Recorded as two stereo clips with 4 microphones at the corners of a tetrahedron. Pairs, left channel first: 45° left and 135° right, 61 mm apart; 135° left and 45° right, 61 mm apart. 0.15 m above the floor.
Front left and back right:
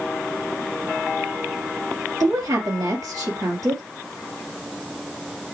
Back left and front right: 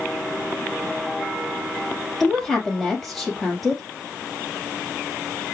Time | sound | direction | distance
2.2 | a woman speaking | 135° right | 3 m